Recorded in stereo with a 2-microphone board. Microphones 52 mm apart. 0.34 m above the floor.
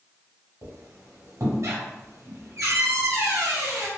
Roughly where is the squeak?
Right.